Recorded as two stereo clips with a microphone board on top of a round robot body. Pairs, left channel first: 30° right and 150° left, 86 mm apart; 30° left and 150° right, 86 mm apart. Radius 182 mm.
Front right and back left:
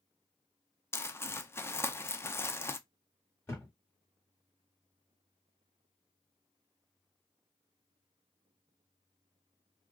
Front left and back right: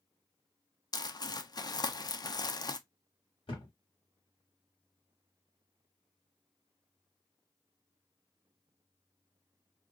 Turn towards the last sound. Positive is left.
turn(degrees=35)